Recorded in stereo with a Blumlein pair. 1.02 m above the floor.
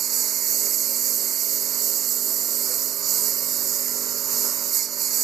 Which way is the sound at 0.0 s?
25° right.